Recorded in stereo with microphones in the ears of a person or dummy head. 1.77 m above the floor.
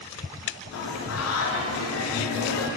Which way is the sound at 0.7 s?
75° left (ahead or behind).